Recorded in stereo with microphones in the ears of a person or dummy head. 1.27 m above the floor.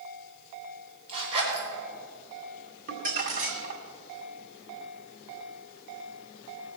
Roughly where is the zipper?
Right.